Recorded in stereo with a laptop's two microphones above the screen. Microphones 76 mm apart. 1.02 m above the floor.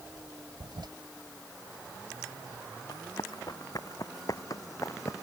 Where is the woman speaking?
I don't hear a woman speaking.